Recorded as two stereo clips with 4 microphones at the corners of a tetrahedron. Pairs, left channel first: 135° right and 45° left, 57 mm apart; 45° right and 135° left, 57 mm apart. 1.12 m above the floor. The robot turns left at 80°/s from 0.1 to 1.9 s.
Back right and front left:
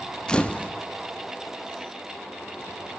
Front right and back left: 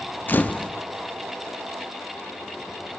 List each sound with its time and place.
0.3 s a camera shutter: 70° right, 0.6 m; by 0.7 s 105° right, 0.6 m